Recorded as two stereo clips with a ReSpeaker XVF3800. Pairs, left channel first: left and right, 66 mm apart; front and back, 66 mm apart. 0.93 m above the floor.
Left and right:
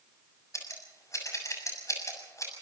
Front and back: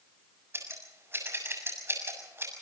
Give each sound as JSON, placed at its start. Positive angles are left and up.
{"t": 0.5, "sound": "scissors", "azimuth_deg": 130, "distance_m": 6.5}